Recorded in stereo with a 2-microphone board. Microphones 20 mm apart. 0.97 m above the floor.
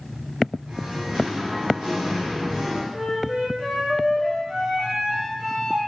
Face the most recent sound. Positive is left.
turn(degrees=-60)  # may be behind; listen again after turning